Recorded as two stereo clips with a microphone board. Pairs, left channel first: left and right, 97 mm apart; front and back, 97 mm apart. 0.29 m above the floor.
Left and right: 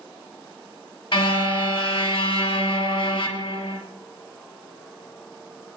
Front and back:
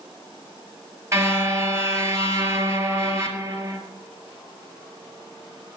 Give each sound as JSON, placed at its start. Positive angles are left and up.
{"t": 1.1, "sound": "a car horn", "azimuth_deg": 120, "distance_m": 2.5}